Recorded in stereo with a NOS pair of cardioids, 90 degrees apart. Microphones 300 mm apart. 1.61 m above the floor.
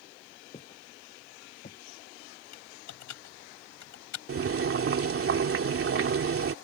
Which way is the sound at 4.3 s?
45° right.